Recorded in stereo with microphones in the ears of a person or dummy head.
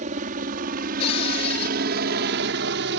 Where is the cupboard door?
40° left (ahead or behind).